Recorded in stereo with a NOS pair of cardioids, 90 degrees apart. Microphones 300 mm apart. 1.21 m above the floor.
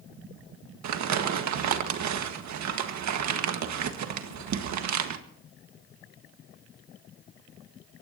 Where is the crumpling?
70° right, 1.7 m.